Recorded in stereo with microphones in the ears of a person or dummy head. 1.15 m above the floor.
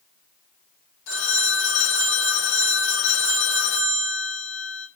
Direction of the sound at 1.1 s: 90° left.